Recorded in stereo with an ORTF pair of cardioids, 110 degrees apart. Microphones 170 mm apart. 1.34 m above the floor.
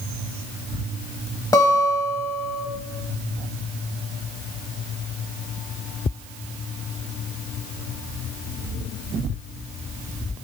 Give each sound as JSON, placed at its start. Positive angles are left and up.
{"t": 1.5, "sound": "a guitar", "azimuth_deg": 20, "distance_m": 1.1}